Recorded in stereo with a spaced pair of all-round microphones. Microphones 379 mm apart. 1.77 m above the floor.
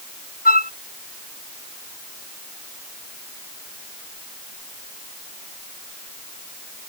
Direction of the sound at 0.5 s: 25° left (ahead or behind).